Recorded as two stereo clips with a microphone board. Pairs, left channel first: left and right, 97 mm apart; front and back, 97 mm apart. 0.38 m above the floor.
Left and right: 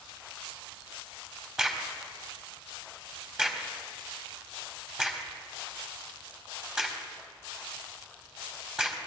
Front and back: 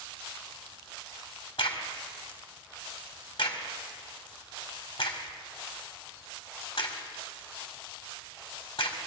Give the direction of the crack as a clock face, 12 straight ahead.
12 o'clock.